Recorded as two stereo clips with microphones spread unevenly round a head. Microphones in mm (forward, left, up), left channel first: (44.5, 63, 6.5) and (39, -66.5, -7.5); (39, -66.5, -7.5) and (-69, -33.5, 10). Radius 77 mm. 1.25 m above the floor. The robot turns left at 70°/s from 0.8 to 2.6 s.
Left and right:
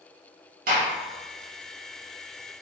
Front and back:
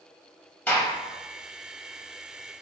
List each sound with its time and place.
0.7 s a gunshot: 90° right, 1.3 m; by 0.9 s 95° right, 1.3 m